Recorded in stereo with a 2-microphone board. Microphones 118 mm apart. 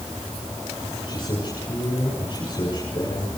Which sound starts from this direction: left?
A man speaking, at 1.1 s.